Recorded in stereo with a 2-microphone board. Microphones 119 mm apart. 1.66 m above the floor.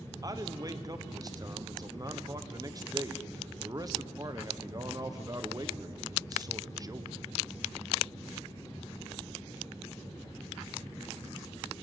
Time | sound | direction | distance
0.2 | a man speaking | 30° right (ahead or behind) | 1.1 m